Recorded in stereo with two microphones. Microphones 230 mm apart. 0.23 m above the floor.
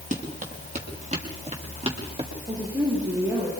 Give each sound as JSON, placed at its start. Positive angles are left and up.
{"t": 0.1, "sound": "running footsteps", "side_deg": -30, "distance_m": 6.0}
{"t": 2.5, "sound": "a woman speaking", "side_deg": -15, "distance_m": 8.5}